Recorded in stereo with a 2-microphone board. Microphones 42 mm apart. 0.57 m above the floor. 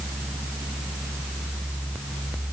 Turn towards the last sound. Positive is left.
No sound to turn to.